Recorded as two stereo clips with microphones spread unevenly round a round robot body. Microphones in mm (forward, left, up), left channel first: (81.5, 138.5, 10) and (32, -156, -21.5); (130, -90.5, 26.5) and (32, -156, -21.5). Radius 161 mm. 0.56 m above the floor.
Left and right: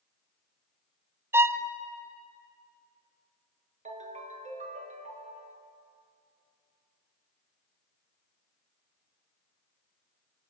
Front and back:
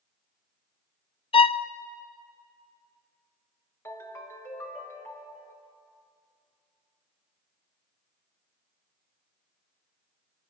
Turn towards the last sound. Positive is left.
turn(degrees=-30)